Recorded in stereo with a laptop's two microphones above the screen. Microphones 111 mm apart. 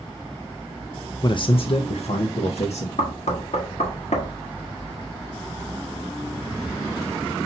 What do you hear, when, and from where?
1.2 s a man speaking: 40° left (ahead or behind), 0.6 m; by 2.9 s 75° left (ahead or behind), 1.2 m
3.0 s knocking: 85° left, 1.2 m